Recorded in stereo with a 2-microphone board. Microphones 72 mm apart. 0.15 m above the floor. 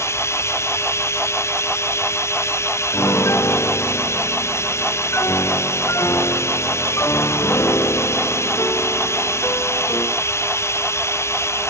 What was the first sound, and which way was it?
Running water, 40° left (ahead or behind).